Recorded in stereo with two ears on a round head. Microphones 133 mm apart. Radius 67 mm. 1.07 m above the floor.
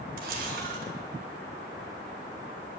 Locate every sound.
0.2 s a camera shutter: 60° right (ahead or behind), 1.3 m